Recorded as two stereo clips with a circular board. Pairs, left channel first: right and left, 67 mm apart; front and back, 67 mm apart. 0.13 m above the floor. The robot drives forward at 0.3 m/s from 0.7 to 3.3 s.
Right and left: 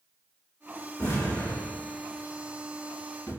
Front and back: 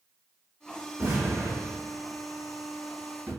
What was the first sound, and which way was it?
An explosion, 125° right.